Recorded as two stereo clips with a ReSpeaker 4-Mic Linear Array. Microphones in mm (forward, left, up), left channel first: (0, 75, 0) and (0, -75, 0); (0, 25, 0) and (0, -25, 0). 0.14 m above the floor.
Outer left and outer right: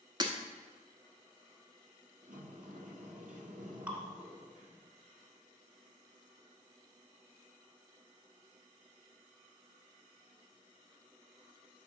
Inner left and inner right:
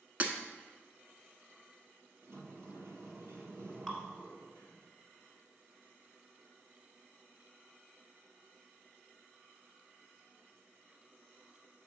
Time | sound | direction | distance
0.2 | breaking glass | 30° right (ahead or behind) | 0.9 m
2.2 | a sliding door | 65° right (ahead or behind) | 1.1 m
3.9 | dripping | 10° right (ahead or behind) | 1.5 m